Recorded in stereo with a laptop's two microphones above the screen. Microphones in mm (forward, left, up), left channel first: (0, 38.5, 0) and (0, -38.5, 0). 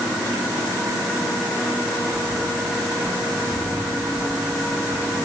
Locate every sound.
Only background noise.